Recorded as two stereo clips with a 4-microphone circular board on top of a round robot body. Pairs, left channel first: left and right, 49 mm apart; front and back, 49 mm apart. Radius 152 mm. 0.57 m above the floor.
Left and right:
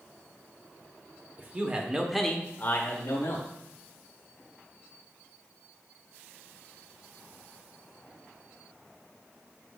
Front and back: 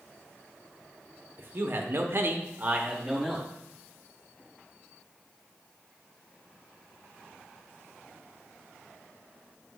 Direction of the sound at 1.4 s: 135° right.